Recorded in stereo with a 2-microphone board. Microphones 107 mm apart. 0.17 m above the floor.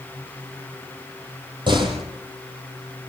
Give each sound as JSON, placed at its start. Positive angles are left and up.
{"t": 1.7, "sound": "a door slam", "side_deg": -45, "distance_m": 5.0}